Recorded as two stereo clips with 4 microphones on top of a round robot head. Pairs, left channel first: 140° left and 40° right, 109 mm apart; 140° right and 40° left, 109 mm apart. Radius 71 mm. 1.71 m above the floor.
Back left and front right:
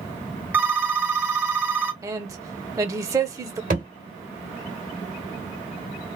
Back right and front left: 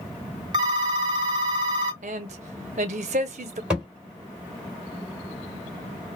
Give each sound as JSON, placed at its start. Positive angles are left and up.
{"t": 0.5, "sound": "a phone ringing", "azimuth_deg": 25, "distance_m": 0.6}
{"t": 2.0, "sound": "a man speaking", "azimuth_deg": 20, "distance_m": 0.8}
{"t": 3.7, "sound": "a thud", "azimuth_deg": -35, "distance_m": 2.0}